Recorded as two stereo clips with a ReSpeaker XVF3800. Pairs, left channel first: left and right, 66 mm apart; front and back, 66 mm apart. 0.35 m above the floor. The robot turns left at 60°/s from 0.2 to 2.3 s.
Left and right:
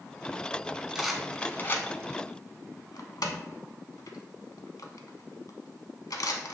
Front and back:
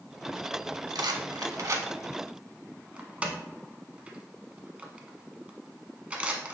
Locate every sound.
0.9 s a rattle: 170° right, 0.6 m; by 6.5 s 110° left, 0.6 m